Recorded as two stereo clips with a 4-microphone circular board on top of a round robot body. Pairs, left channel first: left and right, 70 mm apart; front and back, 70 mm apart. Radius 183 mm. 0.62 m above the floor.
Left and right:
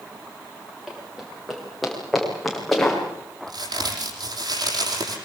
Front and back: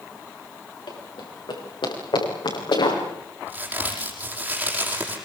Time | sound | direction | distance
0.9 | running footsteps | straight ahead | 10 m
3.5 | a crack | 110° right | 9.5 m